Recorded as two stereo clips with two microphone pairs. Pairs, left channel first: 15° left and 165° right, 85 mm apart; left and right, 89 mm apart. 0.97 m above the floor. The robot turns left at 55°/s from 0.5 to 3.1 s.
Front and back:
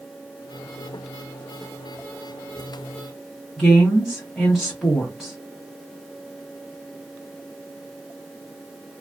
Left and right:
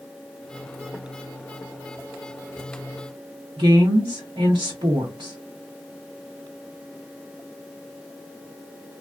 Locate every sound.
3.6 s a woman speaking: 75° right, 0.9 m